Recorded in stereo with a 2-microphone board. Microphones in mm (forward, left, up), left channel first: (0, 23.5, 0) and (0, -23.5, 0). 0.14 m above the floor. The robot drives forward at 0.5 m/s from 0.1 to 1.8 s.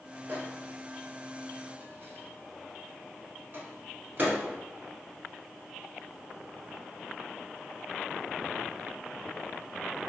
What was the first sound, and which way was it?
A microwave, 45° right (ahead or behind).